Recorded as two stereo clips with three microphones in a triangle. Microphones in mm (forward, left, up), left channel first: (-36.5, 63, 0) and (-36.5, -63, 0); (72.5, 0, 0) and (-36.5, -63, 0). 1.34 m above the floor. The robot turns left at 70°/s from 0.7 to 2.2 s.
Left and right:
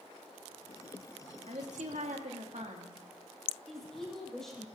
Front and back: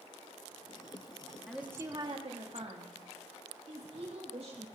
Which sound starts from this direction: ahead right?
A woman speaking, at 1.5 s.